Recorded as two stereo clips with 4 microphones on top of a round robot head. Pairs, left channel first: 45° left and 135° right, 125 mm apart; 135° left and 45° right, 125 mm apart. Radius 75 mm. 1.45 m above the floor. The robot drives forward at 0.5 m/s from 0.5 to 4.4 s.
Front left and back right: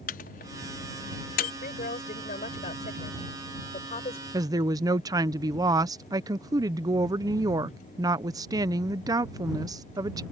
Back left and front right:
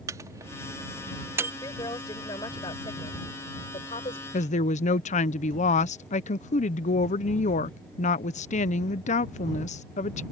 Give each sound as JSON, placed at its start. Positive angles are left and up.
{"t": 0.1, "sound": "a microwave", "azimuth_deg": 25}
{"t": 1.6, "sound": "a woman speaking", "azimuth_deg": 70}
{"t": 4.3, "sound": "a woman speaking", "azimuth_deg": 160}